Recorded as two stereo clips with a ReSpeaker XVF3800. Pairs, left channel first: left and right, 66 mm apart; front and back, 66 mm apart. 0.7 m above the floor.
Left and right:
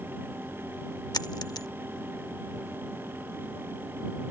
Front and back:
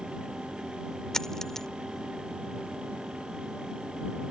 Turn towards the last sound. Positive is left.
turn(degrees=80)